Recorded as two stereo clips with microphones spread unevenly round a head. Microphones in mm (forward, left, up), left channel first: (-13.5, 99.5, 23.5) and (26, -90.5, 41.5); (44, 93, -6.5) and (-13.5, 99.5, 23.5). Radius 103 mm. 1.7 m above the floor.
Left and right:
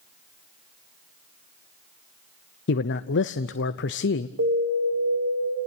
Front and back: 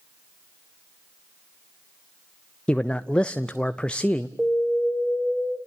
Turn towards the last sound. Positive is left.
turn(degrees=-95)